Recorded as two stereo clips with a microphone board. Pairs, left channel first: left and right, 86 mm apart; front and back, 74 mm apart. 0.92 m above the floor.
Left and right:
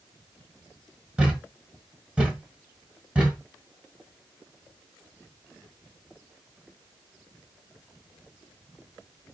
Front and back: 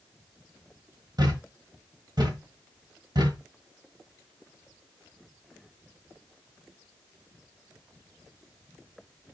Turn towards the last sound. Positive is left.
turn(degrees=-165)